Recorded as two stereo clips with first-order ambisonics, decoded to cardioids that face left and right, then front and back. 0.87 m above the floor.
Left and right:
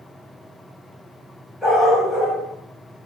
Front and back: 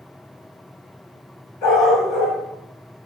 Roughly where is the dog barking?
Ahead.